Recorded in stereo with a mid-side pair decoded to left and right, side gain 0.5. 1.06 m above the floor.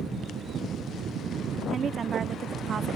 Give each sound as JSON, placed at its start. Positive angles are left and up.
{"t": 1.7, "sound": "a woman speaking", "azimuth_deg": -45}